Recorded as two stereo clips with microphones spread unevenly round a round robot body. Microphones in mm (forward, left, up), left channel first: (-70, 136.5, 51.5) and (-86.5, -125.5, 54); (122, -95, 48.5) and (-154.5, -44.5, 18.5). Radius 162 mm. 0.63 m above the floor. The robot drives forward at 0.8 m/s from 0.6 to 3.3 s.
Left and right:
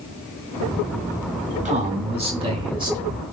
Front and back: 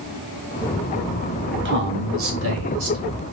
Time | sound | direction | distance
1.6 | a man speaking | 155° right | 1.3 m